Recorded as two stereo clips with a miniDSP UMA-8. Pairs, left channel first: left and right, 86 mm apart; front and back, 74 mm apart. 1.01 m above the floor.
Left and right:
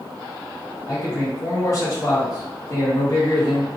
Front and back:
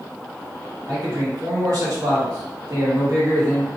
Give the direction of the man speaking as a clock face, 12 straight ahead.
7 o'clock.